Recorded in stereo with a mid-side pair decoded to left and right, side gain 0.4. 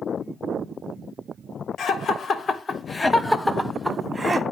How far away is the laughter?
About 1.3 m.